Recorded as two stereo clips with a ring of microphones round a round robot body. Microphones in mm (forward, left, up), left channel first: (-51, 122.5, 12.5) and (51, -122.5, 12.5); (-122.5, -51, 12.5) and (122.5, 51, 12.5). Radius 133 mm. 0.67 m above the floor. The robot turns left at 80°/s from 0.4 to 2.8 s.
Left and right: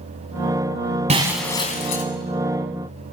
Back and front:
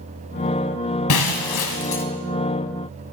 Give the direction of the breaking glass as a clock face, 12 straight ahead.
4 o'clock.